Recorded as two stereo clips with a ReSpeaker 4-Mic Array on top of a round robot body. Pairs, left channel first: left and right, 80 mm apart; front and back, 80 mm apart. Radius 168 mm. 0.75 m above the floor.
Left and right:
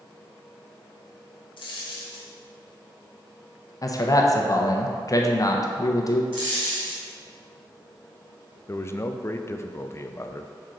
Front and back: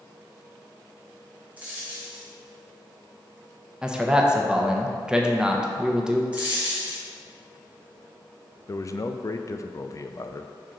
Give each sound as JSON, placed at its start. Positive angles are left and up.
{"t": 1.6, "sound": "a dropped coin", "azimuth_deg": 110, "distance_m": 0.6}
{"t": 3.8, "sound": "a man speaking", "azimuth_deg": 105, "distance_m": 1.0}
{"t": 6.3, "sound": "a dropped coin", "azimuth_deg": -105, "distance_m": 0.9}
{"t": 8.7, "sound": "a man speaking", "azimuth_deg": 40, "distance_m": 0.6}